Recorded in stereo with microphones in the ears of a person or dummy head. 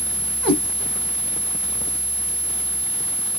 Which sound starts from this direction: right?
A cat meowing, at 0.4 s.